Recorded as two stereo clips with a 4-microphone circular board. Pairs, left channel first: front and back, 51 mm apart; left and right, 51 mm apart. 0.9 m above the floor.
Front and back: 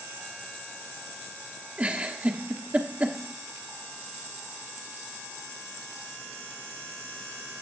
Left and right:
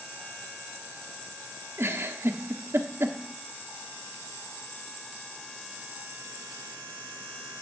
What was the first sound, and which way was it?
A giggle, 120° right.